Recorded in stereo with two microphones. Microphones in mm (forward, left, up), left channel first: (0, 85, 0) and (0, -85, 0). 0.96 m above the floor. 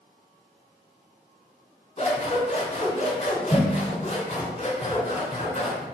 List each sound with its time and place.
2.0 s scissors: 35° left (ahead or behind), 2.5 m